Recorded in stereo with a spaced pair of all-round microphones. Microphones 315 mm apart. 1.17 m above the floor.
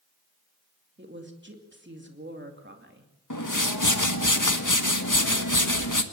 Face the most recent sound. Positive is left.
turn(degrees=75)  # may be behind; listen again after turning